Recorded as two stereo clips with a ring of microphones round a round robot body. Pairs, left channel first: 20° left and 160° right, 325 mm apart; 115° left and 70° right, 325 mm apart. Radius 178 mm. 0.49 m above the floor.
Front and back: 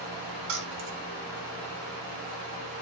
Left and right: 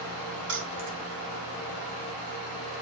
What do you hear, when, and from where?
0.5 s keys jangling: 120° right, 2 m